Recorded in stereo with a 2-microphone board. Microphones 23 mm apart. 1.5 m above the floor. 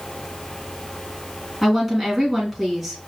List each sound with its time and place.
1.6 s a woman speaking: centre (ahead or behind), 2.5 m